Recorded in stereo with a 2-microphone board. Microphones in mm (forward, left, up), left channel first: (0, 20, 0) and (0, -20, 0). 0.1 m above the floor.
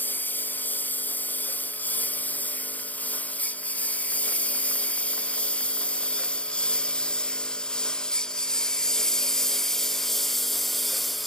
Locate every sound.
0.0 s a lawn mower: 45° left (ahead or behind); by 11.3 s 5° left (ahead or behind)